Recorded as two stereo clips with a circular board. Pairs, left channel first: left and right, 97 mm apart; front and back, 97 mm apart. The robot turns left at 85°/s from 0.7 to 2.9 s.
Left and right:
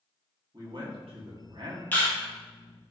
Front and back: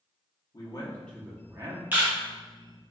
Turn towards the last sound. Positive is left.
turn(degrees=50)